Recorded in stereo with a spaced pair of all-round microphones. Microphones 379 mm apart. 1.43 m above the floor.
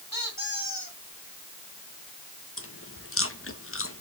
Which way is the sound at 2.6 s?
35° left (ahead or behind).